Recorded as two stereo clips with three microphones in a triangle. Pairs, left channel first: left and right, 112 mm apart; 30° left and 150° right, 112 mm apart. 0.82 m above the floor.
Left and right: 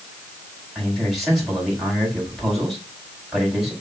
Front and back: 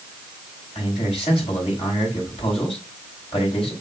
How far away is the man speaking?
About 4.5 m.